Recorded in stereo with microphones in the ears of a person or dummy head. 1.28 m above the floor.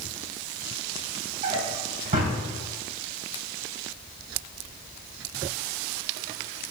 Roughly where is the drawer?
Right.